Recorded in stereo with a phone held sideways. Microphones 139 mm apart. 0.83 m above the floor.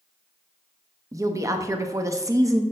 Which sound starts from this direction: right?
A woman speaking, at 1.1 s.